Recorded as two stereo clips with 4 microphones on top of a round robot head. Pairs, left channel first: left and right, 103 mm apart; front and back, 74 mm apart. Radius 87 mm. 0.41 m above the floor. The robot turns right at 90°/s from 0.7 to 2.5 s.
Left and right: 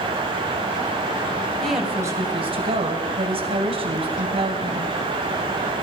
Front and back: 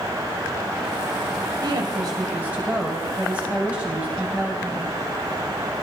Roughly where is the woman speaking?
Behind.